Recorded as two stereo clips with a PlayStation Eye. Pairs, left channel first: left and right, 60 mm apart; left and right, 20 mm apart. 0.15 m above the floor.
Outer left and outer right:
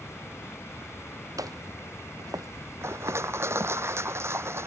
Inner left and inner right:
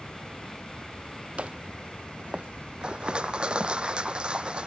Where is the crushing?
50° right (ahead or behind).